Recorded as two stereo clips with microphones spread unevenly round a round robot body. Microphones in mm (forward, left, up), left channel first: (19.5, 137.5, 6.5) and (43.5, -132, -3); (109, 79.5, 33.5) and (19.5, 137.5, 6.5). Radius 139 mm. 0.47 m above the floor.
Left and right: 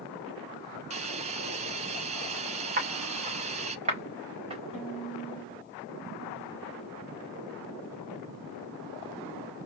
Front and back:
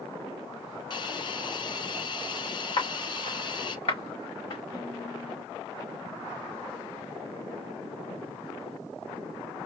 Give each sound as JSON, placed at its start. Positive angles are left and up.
{"t": 0.9, "sound": "a hiss", "azimuth_deg": -20, "distance_m": 0.5}
{"t": 2.8, "sound": "footsteps", "azimuth_deg": -30, "distance_m": 2.5}
{"t": 4.7, "sound": "a violin", "azimuth_deg": -5, "distance_m": 3.0}